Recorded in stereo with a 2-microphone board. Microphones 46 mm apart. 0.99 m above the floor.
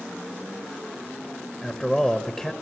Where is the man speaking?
15° left (ahead or behind), 0.9 m.